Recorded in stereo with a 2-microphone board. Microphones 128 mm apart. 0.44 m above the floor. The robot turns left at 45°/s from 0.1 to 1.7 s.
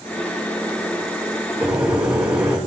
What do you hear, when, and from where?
1.6 s a microwave: 10° right (ahead or behind), 4 m; by 2.6 s 5° right (ahead or behind), 4 m